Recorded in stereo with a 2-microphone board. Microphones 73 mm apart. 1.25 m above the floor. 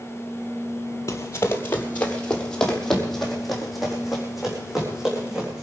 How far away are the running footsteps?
About 2.0 m.